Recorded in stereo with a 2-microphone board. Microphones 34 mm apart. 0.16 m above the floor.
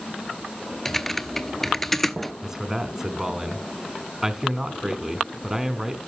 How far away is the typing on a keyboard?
About 0.7 m.